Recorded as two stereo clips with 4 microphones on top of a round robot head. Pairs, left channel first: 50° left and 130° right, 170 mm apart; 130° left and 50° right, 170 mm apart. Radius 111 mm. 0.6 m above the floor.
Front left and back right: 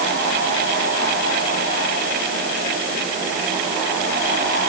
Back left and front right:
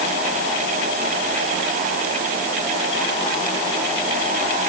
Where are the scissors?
No scissors in this recording.